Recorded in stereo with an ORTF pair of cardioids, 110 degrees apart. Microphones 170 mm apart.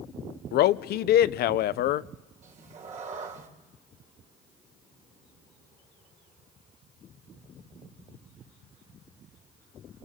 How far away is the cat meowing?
About 2.5 m.